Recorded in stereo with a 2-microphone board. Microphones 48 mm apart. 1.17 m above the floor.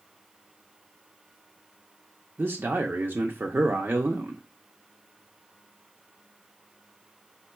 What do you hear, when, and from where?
2.4 s a man speaking: 50° right (ahead or behind), 0.5 m